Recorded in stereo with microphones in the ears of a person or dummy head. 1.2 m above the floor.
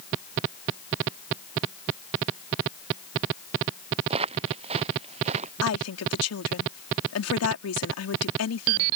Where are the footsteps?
30° right (ahead or behind); by 5.5 s 35° right (ahead or behind).